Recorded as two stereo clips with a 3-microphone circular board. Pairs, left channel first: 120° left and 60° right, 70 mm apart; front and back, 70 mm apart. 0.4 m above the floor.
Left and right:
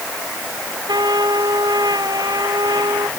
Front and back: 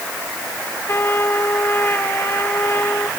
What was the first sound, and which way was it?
A trumpet, 55° right.